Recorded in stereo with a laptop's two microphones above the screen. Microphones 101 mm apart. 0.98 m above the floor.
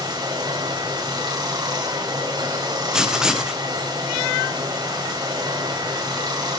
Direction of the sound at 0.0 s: 40° right (ahead or behind).